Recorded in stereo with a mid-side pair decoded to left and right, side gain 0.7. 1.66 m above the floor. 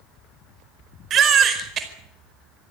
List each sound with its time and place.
1.1 s a baby crying: 40° right, 4.5 m